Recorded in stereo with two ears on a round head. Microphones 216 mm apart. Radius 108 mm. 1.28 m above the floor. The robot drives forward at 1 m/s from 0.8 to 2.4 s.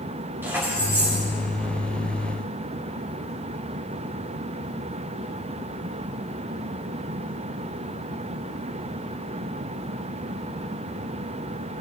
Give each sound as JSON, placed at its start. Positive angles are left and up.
{"t": 0.4, "sound": "keys jangling", "side_deg": -10, "distance_m": 3.5}